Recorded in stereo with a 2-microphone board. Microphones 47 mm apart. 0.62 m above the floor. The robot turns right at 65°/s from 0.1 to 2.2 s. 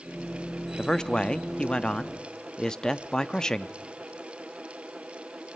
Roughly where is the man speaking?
Centre.